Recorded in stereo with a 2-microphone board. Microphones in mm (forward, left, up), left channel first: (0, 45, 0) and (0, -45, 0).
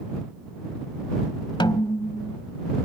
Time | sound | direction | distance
1.6 | a snare drum | 65° left (ahead or behind) | ?